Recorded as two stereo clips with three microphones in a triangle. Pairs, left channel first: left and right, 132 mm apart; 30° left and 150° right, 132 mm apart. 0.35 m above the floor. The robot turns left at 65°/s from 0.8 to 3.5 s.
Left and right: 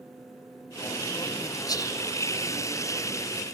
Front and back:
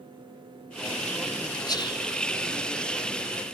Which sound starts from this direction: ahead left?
Whispering, at 1.7 s.